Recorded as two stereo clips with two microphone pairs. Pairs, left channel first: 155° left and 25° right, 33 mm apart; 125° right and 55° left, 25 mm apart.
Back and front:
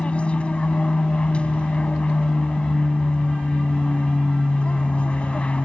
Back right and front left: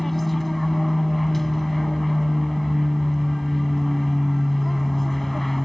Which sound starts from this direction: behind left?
An aircraft, at 0.0 s.